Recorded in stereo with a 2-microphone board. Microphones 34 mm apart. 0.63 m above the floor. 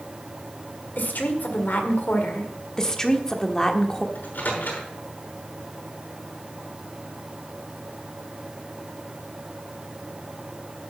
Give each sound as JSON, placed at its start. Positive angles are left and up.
{"t": 1.0, "sound": "a woman speaking", "side_deg": 70, "distance_m": 1.8}
{"t": 2.8, "sound": "a woman speaking", "side_deg": 20, "distance_m": 1.2}
{"t": 4.2, "sound": "a microwave", "side_deg": 70, "distance_m": 6.0}